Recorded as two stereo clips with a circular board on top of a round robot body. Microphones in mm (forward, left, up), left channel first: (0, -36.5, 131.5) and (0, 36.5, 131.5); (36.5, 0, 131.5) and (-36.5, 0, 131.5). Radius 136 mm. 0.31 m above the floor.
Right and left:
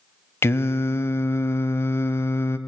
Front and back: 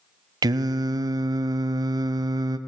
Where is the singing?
145° right, 0.6 m.